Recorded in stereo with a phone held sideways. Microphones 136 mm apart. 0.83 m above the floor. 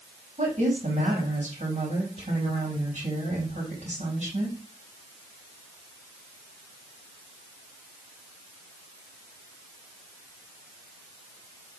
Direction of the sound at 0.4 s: 65° right (ahead or behind).